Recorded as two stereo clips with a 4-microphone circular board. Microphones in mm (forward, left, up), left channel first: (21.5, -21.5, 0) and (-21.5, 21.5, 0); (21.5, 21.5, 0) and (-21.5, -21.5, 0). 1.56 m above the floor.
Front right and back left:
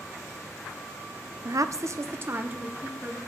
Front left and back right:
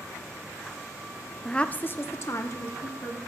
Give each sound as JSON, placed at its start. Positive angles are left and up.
{"t": 1.4, "sound": "a woman speaking", "azimuth_deg": 130, "distance_m": 0.6}